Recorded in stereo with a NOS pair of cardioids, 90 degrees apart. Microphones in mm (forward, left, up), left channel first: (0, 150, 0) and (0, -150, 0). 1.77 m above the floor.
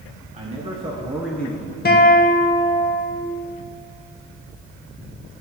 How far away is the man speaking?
About 2 m.